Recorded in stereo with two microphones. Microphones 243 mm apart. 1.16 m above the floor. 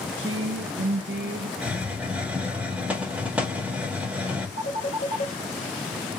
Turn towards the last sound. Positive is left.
turn(degrees=45)  # may be behind; listen again after turning